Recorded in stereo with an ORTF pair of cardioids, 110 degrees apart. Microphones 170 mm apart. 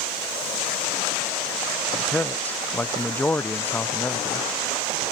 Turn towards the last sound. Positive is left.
turn(degrees=10)